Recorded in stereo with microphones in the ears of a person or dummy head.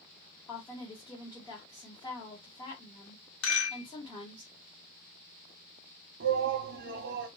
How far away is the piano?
I don't hear a piano.